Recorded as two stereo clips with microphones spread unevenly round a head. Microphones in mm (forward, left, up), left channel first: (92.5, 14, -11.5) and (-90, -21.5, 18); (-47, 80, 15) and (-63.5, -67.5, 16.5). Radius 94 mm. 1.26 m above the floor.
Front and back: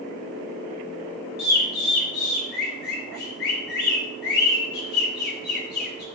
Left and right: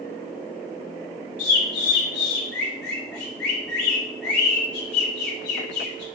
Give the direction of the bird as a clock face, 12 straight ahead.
10 o'clock.